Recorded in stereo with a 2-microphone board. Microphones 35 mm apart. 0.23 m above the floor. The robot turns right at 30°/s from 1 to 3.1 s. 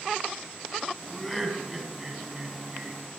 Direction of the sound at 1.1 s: 5° left (ahead or behind).